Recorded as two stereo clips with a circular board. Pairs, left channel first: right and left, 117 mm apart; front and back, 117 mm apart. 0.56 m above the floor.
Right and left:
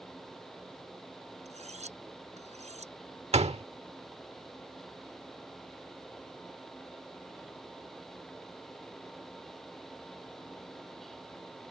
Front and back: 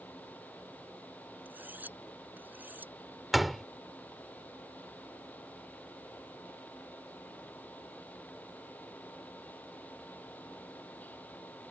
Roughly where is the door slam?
Left.